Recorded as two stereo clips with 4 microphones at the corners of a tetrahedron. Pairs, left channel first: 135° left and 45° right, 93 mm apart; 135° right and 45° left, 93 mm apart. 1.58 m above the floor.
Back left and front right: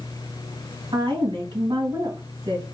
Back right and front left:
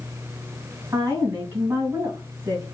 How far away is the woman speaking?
About 2.0 m.